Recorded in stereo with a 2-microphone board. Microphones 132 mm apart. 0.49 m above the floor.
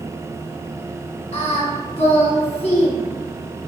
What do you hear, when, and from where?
1.3 s singing: 45° left (ahead or behind), 0.6 m